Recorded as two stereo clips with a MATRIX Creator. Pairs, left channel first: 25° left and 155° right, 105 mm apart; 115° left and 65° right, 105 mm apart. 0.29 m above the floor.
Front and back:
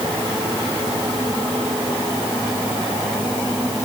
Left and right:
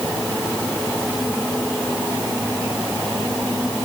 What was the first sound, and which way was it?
Only background noise.